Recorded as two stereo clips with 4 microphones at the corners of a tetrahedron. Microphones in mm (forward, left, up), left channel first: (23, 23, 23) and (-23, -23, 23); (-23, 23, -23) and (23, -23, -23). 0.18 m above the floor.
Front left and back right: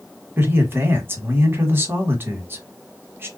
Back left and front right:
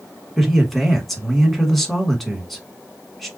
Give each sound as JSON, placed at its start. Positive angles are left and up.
{"t": 0.4, "sound": "a man speaking", "azimuth_deg": -140, "distance_m": 1.2}